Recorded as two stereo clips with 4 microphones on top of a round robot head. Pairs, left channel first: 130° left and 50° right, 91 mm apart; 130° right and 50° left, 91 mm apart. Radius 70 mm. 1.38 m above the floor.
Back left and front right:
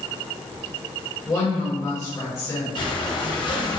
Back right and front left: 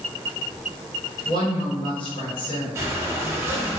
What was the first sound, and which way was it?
A woman speaking, 170° right.